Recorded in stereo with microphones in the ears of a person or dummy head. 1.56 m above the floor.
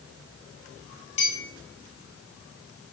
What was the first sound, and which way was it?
A clink, 35° left (ahead or behind).